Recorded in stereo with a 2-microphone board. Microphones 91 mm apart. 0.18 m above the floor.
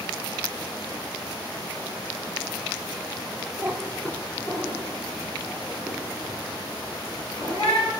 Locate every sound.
3.6 s a cat meowing: 25° right (ahead or behind), 0.6 m; by 7.9 s 45° left (ahead or behind), 5 m